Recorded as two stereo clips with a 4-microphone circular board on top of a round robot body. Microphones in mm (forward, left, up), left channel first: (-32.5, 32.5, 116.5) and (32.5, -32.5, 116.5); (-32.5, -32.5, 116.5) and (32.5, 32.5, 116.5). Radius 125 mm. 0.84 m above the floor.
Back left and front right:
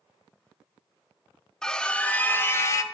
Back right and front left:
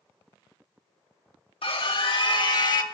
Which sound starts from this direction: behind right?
A scream, at 1.6 s.